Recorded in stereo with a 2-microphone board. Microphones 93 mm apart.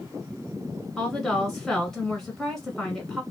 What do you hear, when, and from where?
1.0 s a woman speaking: 5° left (ahead or behind), 1.1 m